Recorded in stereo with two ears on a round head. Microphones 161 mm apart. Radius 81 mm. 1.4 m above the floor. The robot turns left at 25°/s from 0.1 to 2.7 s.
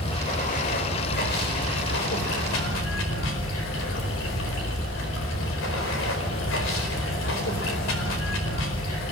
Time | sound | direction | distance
0.0 | running water | 145° left | 4.5 m